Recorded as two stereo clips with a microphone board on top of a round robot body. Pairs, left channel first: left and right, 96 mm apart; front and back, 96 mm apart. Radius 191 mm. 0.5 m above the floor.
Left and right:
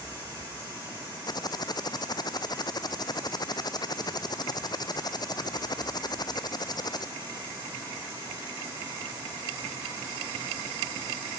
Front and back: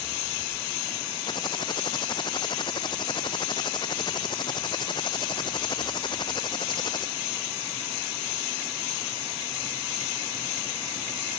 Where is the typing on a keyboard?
40° left.